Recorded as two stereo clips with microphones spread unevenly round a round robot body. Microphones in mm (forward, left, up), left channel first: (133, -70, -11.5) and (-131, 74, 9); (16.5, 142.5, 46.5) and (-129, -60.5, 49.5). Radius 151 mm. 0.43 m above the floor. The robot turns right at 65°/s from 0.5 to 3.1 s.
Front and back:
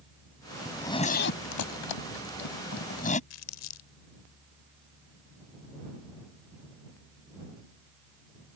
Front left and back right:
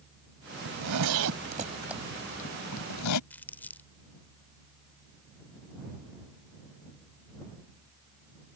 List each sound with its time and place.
0.7 s a zipper: 120° right; by 3.2 s 35° left
3.3 s crumpling: 25° right